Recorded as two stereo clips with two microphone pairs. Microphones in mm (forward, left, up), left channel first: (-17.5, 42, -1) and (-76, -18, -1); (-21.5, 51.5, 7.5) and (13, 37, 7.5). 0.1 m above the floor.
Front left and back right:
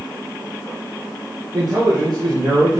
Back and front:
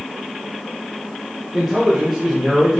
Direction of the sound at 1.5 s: 100° right.